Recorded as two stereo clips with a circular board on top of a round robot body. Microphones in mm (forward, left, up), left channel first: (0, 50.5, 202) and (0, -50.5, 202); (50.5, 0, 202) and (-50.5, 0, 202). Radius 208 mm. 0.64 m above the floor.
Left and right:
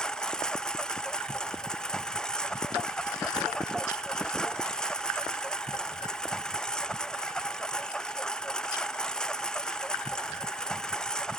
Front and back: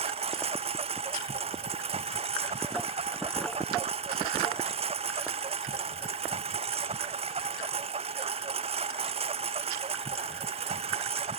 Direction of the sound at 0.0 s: 175° left.